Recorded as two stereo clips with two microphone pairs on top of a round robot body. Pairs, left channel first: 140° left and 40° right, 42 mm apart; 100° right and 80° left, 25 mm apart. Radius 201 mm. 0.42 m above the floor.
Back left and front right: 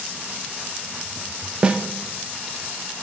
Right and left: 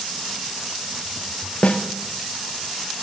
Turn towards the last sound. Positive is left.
turn(degrees=-110)